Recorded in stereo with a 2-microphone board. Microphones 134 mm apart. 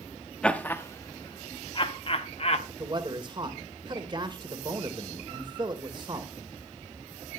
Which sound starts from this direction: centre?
Laughter, at 0.4 s.